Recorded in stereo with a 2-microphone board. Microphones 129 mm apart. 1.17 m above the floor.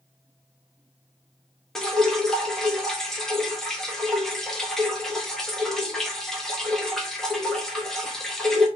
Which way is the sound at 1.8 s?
5° left (ahead or behind).